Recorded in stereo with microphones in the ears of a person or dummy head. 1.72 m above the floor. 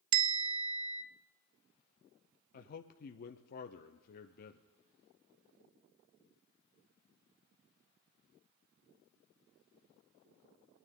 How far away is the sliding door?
I don't hear a sliding door.